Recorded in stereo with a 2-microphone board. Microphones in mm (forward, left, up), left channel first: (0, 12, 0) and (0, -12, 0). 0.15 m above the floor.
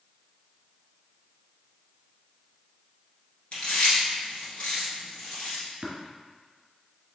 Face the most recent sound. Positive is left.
turn(degrees=-45)  # may be behind; listen again after turning